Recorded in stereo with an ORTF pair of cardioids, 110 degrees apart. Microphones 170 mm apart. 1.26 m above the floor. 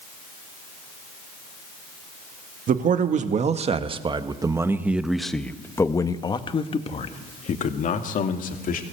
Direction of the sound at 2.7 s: 50° right.